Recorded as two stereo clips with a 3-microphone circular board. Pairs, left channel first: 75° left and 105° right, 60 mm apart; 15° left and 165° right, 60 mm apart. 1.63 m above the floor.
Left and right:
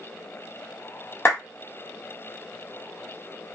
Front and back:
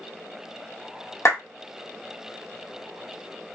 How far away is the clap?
About 1.2 m.